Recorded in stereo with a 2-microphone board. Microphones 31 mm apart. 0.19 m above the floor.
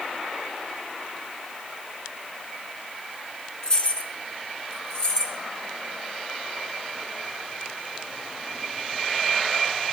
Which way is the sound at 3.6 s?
30° left (ahead or behind).